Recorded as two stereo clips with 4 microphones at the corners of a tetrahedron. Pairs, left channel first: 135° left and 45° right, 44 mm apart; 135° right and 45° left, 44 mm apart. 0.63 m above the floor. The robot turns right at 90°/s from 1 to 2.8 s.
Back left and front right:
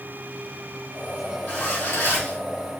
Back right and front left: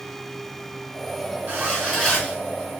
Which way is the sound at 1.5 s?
90° left.